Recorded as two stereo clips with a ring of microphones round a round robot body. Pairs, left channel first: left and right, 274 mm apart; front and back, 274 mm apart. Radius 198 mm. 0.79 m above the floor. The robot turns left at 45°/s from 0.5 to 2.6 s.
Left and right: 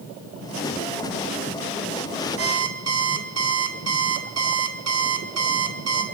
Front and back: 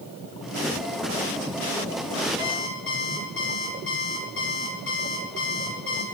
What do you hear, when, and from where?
2.4 s an alarm clock: 50° right, 1.8 m; by 6.0 s 60° right, 1.8 m